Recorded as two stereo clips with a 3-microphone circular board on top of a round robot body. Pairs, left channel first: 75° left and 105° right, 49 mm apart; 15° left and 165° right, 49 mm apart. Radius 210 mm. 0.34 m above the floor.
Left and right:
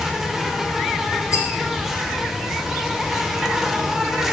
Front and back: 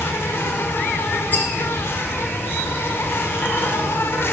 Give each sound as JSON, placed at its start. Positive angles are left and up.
{"t": 0.0, "sound": "an insect", "azimuth_deg": -20, "distance_m": 0.7}
{"t": 1.3, "sound": "a rattle", "azimuth_deg": 65, "distance_m": 0.7}